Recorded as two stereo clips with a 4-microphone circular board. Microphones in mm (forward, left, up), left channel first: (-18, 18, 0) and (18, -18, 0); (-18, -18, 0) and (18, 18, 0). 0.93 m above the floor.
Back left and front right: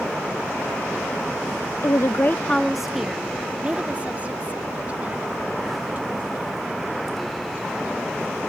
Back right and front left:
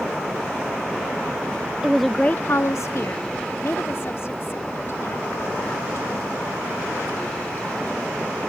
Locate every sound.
1.8 s a woman speaking: 125° left; by 8.4 s 95° right